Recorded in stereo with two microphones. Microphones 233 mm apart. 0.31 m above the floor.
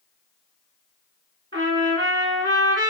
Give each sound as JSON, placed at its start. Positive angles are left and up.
{"t": 1.5, "sound": "a trumpet", "side_deg": -60, "distance_m": 2.5}